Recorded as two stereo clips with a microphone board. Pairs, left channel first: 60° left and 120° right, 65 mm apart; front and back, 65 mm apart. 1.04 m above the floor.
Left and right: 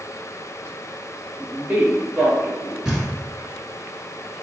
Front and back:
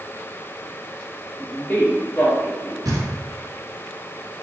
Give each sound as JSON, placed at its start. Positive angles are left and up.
{"t": 1.4, "sound": "a man speaking", "azimuth_deg": -75, "distance_m": 0.9}
{"t": 2.9, "sound": "knocking", "azimuth_deg": 160, "distance_m": 0.8}